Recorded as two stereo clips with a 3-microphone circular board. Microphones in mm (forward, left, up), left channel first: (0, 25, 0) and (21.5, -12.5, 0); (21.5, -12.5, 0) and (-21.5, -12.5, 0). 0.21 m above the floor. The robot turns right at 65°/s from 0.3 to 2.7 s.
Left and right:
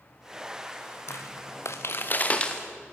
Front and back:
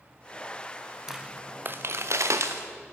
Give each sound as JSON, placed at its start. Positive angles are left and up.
{"t": 1.1, "sound": "footsteps", "azimuth_deg": 100, "distance_m": 1.0}